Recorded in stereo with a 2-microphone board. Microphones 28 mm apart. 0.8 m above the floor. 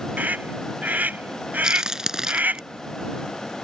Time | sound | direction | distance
0.2 | a scream | 80° right | ?
1.6 | a crack | 20° right (ahead or behind) | ?